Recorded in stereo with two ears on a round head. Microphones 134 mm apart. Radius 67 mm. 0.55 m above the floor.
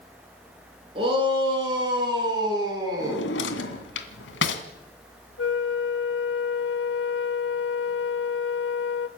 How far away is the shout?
About 8.5 m.